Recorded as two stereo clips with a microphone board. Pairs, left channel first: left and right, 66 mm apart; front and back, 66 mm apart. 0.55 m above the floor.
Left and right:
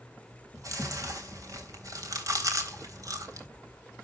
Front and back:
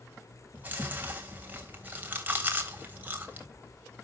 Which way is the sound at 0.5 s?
120° right.